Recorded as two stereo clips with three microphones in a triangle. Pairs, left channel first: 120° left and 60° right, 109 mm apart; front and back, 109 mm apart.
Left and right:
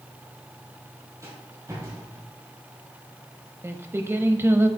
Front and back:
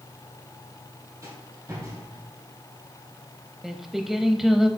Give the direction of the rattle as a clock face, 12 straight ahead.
4 o'clock.